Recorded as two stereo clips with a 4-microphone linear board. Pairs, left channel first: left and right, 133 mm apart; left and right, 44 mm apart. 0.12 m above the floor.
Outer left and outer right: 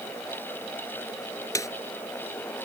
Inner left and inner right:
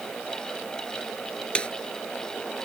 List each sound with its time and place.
1.6 s a snare drum: 25° left (ahead or behind)